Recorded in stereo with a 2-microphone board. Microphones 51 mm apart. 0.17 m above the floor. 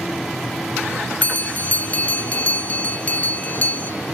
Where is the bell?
30° left (ahead or behind), 0.5 m.